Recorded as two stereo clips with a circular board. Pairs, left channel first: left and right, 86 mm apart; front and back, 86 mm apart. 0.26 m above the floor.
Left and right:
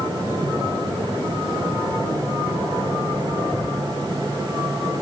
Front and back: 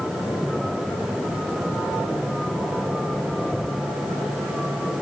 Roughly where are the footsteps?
I don't hear footsteps.